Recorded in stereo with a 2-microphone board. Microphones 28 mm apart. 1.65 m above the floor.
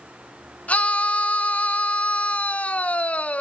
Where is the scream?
55° left (ahead or behind), 1.1 m.